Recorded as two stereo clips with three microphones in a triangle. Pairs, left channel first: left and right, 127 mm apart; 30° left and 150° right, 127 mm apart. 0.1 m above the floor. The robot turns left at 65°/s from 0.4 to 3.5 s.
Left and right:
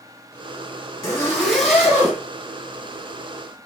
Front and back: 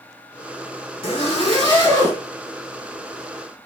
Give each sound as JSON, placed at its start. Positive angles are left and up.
{"t": 1.0, "sound": "a zipper", "azimuth_deg": 40, "distance_m": 2.0}